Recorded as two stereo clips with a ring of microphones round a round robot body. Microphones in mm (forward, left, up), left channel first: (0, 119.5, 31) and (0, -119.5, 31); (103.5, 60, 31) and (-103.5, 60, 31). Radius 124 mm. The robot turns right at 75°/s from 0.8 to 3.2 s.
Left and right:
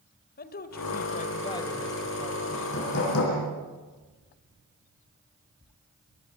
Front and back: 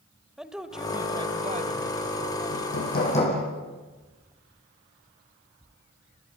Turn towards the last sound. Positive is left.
turn(degrees=60)